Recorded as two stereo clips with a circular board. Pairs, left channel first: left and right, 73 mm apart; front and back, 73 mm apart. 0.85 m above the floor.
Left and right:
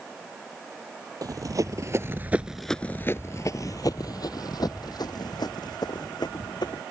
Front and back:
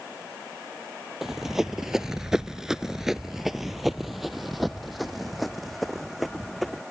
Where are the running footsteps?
95° right; by 6.8 s 90° left.